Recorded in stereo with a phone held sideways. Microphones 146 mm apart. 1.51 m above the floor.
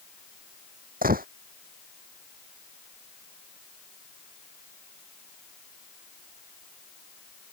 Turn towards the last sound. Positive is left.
turn(degrees=-80)